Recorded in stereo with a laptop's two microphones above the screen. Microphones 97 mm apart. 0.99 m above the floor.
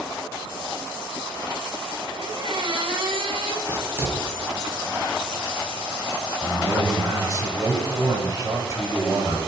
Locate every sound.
2.1 s a squeak: 60° right (ahead or behind), 1.6 m
3.7 s writing: 25° right (ahead or behind), 6.5 m
6.4 s a man speaking: 35° right (ahead or behind), 6 m